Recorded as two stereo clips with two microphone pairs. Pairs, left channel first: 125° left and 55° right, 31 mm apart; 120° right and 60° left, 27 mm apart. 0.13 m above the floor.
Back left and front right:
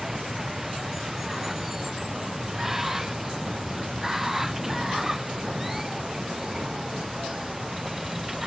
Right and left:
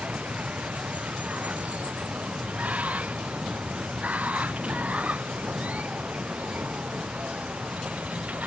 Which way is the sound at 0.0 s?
30° left.